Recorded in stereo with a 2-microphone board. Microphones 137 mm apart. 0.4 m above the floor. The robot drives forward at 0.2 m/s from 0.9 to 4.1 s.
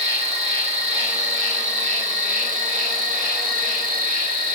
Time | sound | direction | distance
0.0 | an insect | 55° right (ahead or behind) | 1.0 m